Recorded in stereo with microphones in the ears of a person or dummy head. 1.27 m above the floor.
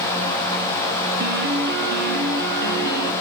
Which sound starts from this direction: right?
A piano, at 1.2 s.